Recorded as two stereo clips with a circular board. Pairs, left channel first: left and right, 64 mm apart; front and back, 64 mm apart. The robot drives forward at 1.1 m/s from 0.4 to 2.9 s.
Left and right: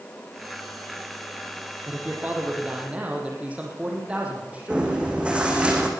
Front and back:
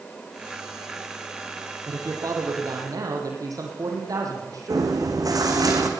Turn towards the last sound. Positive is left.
turn(degrees=-160)